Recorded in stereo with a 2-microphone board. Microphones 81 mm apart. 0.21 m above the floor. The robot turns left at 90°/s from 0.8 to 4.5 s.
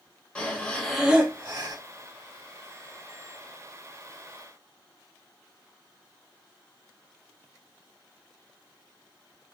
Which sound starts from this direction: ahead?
Breathing, at 0.3 s.